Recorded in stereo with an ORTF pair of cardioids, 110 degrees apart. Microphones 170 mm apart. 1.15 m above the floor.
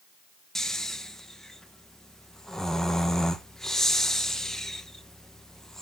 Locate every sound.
0.6 s snoring: 5° left, 0.8 m